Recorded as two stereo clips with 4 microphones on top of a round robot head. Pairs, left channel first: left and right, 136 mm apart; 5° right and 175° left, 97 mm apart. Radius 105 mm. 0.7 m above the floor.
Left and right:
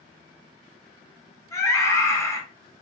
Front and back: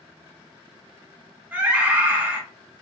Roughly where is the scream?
Behind left.